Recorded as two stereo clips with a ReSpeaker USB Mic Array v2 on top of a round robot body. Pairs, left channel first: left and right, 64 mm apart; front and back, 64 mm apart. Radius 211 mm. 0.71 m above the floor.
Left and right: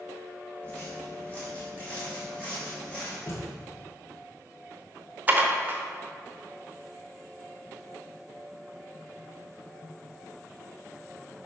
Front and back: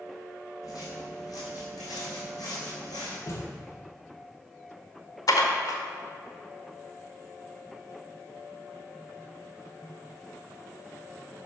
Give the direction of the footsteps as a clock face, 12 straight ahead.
11 o'clock.